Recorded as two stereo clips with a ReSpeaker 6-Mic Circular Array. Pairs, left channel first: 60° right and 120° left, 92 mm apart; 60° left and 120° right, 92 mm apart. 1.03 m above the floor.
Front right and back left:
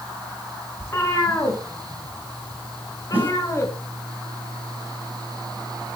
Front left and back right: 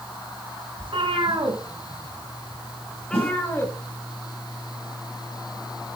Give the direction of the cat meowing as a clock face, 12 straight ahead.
4 o'clock.